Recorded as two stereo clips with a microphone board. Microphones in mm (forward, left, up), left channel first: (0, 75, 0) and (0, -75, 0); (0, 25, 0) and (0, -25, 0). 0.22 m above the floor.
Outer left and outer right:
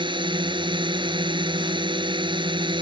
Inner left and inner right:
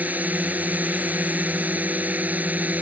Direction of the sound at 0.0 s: 30° right (ahead or behind).